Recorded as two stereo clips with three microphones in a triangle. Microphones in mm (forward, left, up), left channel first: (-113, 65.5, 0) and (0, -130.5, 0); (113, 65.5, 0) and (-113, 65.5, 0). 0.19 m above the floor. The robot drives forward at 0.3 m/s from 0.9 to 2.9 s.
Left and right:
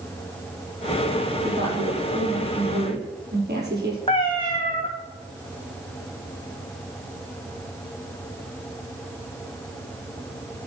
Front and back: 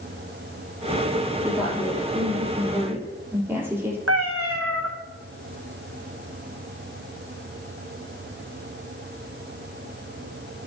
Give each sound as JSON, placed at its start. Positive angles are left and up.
{"t": 1.4, "sound": "a woman speaking", "azimuth_deg": -95, "distance_m": 5.5}
{"t": 4.1, "sound": "a cat meowing", "azimuth_deg": -170, "distance_m": 3.0}